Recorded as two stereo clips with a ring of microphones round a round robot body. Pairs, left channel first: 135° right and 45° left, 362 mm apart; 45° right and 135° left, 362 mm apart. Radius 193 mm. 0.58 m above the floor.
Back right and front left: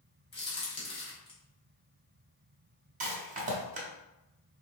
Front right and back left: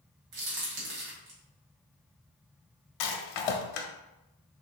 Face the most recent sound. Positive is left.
turn(degrees=-25)